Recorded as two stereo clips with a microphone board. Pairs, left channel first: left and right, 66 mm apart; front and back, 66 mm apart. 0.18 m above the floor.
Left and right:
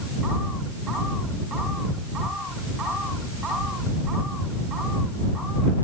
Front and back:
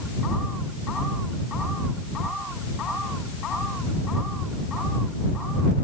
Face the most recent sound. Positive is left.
No sound to turn to.